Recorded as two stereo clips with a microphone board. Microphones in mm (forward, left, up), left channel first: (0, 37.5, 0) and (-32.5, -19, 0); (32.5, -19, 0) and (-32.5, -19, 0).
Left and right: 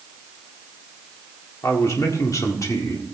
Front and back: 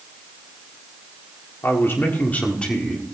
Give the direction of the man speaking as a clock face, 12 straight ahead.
11 o'clock.